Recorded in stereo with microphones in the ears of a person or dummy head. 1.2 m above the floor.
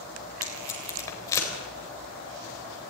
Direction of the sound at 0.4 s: 20° left (ahead or behind).